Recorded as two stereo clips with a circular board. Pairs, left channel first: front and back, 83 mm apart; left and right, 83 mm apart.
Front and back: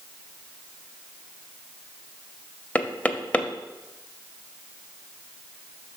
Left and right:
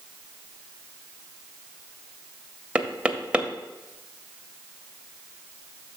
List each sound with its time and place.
2.8 s knocking: 35° right, 0.6 m